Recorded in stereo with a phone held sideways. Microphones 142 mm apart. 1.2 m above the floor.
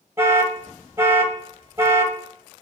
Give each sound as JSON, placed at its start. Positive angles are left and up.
{"t": 0.2, "sound": "an alarm", "side_deg": -15, "distance_m": 1.2}